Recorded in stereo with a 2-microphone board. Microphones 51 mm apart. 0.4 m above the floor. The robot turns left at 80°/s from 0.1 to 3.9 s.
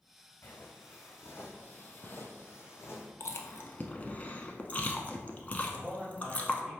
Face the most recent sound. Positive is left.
turn(degrees=-15)  # may be behind; listen again after turning